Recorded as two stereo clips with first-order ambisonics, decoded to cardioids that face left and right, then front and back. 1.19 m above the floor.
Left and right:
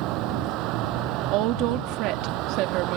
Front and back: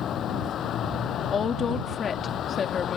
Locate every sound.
0.0 s a vehicle: 55° right
1.3 s a woman speaking: 65° right